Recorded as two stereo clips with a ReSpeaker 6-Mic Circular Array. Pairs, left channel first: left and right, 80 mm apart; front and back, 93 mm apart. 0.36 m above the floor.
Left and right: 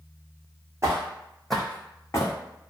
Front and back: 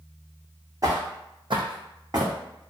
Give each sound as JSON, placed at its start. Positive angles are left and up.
{"t": 0.8, "sound": "footsteps", "azimuth_deg": -135, "distance_m": 0.8}